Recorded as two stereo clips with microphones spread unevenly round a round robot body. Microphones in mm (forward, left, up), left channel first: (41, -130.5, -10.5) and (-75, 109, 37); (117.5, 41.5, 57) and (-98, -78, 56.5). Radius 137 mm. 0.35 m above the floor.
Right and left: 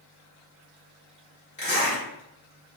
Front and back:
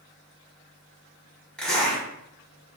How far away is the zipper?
About 1.5 m.